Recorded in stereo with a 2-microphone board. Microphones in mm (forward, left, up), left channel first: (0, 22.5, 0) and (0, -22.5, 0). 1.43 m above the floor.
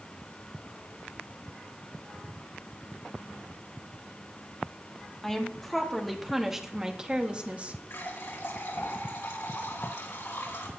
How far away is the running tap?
About 4 m.